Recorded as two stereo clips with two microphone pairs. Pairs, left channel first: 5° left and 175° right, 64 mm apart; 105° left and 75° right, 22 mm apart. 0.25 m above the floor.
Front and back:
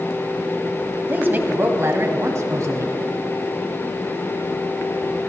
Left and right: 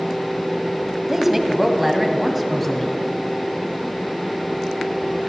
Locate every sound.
1.1 s a woman speaking: 135° right, 1.6 m; by 3.0 s 170° right, 2.5 m